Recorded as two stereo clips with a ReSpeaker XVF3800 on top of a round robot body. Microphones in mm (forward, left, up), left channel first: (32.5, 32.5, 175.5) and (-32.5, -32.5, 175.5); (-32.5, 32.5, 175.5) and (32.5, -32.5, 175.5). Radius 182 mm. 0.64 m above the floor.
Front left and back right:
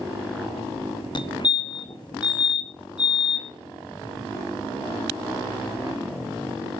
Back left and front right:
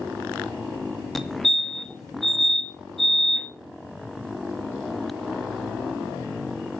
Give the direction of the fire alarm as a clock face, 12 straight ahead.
10 o'clock.